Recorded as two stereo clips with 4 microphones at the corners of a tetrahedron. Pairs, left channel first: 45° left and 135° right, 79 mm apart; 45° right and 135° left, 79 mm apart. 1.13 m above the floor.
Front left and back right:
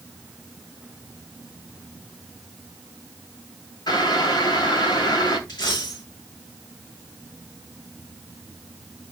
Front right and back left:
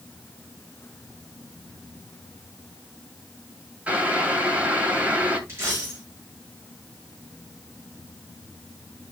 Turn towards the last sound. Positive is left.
turn(degrees=75)